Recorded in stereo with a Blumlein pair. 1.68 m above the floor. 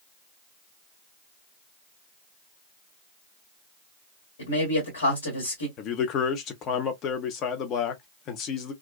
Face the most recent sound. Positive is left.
turn(degrees=35)